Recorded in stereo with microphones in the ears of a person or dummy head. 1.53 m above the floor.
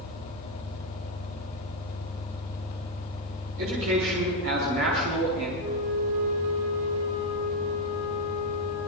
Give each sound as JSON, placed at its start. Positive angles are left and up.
{"t": 0.0, "sound": "an engine running", "side_deg": 60, "distance_m": 3.5}
{"t": 3.6, "sound": "a man speaking", "side_deg": -75, "distance_m": 4.5}
{"t": 5.6, "sound": "a flute", "side_deg": -65, "distance_m": 8.0}